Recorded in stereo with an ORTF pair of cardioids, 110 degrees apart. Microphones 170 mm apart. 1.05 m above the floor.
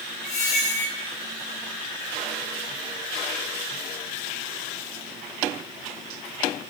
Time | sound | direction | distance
0.2 | a squeak | 45° left | 1.2 m